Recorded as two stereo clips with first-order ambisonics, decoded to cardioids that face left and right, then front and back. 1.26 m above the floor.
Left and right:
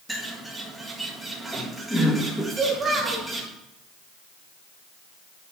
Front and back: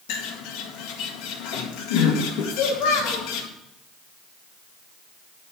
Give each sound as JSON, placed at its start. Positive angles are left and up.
{"t": 0.1, "sound": "a bird", "azimuth_deg": -5, "distance_m": 2.0}
{"t": 2.5, "sound": "a child speaking", "azimuth_deg": -20, "distance_m": 3.0}